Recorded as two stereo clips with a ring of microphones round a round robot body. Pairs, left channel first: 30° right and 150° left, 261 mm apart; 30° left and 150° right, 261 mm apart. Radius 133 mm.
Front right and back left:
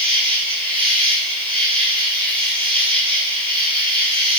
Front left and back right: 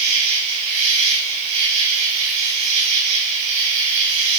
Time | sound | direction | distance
0.0 | an insect | 140° right | 3 m